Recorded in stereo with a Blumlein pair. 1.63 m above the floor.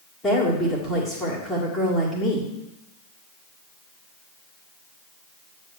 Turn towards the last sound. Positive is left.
turn(degrees=10)